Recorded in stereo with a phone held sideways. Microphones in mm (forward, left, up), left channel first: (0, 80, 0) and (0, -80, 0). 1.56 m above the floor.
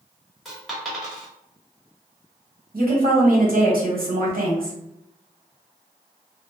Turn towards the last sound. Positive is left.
turn(degrees=-85)